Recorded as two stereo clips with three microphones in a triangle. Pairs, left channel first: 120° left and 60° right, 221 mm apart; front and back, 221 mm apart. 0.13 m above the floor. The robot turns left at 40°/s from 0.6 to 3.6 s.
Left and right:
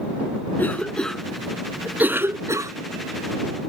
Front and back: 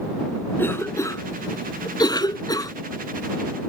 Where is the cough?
60° left; by 2.7 s 25° right.